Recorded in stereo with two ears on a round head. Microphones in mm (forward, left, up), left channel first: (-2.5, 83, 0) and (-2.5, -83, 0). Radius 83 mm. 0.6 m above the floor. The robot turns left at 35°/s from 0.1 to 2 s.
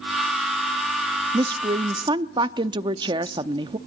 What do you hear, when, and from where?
1.3 s a woman speaking: 25° right (ahead or behind), 0.6 m